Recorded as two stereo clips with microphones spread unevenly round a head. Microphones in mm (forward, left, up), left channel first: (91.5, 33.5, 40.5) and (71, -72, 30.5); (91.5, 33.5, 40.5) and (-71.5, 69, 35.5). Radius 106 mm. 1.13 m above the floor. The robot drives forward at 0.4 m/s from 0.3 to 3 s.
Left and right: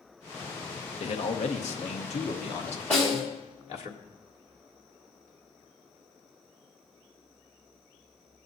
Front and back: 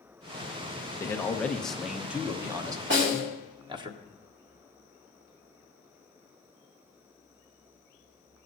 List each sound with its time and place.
1.0 s a man speaking: 60° left, 1.1 m; by 3.9 s 110° left, 1.1 m
2.9 s a snare drum: 160° left, 4.5 m